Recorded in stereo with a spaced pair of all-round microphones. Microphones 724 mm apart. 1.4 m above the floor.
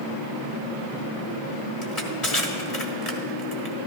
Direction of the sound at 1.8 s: 50° left (ahead or behind).